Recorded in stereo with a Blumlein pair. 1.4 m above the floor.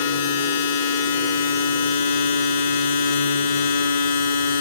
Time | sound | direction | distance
0.0 | a machine running | 60° left | 0.8 m